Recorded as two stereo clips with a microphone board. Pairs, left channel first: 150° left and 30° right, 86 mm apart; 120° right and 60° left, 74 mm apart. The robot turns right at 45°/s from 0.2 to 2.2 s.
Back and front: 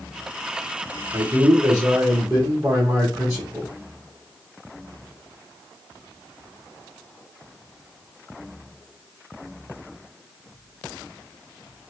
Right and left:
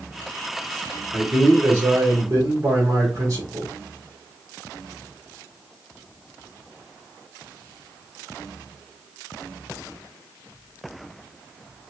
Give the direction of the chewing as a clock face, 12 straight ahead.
No chewing in this recording.